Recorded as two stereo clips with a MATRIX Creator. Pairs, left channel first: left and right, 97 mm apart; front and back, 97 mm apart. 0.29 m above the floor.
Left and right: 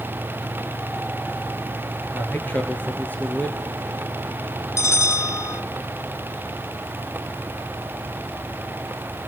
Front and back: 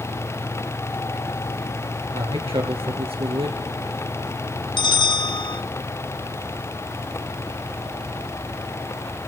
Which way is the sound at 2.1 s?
165° left.